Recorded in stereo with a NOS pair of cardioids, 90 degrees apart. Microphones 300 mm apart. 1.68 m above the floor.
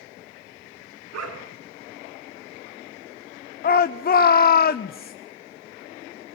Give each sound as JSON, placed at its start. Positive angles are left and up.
{"t": 1.1, "sound": "a dog barking", "azimuth_deg": -65, "distance_m": 5.5}
{"t": 3.6, "sound": "a shout", "azimuth_deg": 30, "distance_m": 1.0}